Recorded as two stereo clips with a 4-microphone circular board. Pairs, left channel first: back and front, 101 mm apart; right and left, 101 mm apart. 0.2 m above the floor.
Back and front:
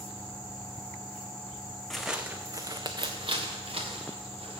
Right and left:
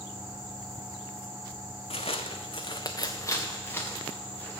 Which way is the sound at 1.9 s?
95° right.